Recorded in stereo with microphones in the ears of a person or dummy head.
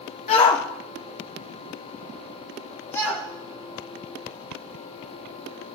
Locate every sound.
0.3 s a shout: 35° left (ahead or behind), 0.6 m; by 5.8 s 10° left (ahead or behind), 4.5 m